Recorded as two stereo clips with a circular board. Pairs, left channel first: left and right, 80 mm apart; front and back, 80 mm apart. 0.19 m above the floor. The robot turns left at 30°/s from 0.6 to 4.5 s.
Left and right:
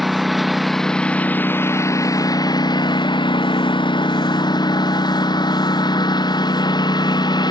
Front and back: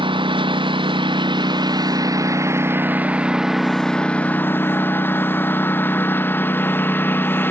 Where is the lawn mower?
Straight behind; by 7.5 s 65° left.